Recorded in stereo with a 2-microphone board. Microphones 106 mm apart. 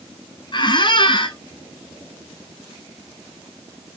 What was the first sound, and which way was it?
A squeak, 45° left (ahead or behind).